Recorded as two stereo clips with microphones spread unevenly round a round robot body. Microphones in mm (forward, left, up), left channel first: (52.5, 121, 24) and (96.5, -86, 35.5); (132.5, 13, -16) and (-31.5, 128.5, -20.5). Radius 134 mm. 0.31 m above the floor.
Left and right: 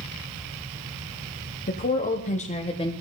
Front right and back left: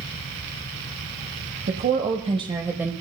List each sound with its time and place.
1.7 s a woman speaking: 125° left, 1.6 m; by 2.9 s 70° left, 1.3 m